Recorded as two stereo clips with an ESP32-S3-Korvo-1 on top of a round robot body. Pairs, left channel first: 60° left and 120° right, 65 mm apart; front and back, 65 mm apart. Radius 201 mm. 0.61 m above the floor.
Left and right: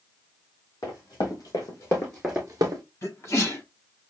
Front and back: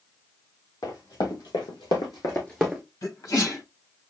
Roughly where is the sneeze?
Ahead.